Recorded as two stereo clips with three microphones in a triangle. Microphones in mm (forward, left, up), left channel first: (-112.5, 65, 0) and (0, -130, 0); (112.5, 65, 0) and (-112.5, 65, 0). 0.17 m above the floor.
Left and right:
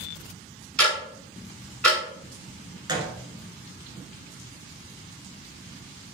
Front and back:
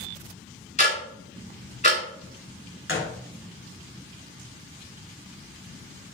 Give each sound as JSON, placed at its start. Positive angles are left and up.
{"t": 0.8, "sound": "ticking", "azimuth_deg": 35, "distance_m": 1.8}
{"t": 2.9, "sound": "a gunshot", "azimuth_deg": 5, "distance_m": 0.8}